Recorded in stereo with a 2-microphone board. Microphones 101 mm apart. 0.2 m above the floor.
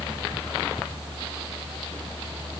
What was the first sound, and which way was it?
Only background noise.